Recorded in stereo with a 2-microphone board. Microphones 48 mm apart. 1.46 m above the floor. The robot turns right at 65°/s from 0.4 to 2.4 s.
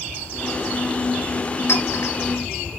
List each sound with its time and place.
1.7 s a clink: 70° left (ahead or behind), 5 m; by 2.1 s 80° left, 5 m